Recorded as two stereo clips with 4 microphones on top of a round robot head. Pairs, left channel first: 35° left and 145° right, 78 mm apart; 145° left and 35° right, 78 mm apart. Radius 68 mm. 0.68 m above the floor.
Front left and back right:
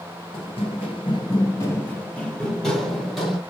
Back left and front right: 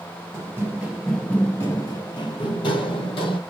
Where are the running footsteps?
20° left, 0.9 m; by 3.4 s 130° left, 1.6 m.